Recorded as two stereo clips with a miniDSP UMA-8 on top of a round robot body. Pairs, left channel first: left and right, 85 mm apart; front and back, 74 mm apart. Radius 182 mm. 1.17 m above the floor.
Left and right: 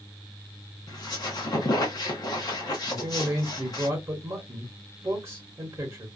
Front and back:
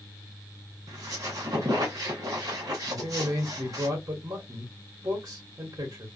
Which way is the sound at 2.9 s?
140° right.